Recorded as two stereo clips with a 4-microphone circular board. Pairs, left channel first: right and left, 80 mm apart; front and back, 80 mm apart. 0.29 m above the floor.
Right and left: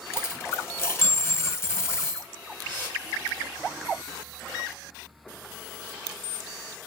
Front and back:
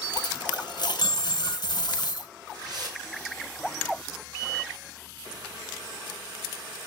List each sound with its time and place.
0.1 s a dropped coin: 25° right, 0.8 m
2.6 s a whoosh: 145° right, 3.5 m